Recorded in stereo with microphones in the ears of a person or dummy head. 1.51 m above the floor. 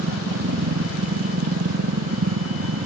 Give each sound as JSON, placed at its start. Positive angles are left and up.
{"t": 0.0, "sound": "a machine running", "side_deg": -80}